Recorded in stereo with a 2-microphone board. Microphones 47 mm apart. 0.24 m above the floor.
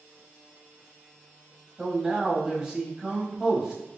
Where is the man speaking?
15° right (ahead or behind), 1.0 m.